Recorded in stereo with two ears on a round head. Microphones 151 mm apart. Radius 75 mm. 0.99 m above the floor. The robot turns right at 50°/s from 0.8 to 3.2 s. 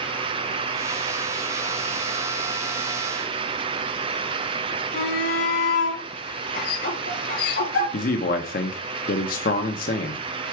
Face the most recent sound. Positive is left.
turn(degrees=55)  # may be behind; listen again after turning